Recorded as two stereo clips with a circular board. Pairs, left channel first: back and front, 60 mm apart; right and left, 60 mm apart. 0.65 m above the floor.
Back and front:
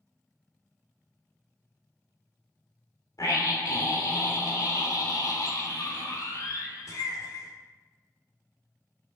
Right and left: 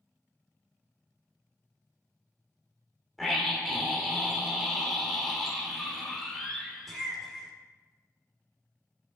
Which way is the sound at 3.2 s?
Straight behind.